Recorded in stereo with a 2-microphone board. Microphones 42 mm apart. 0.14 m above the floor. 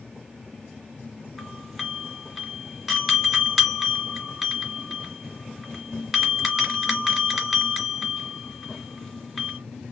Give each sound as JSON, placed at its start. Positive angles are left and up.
{"t": 1.4, "sound": "a doorbell", "side_deg": 0, "distance_m": 3.0}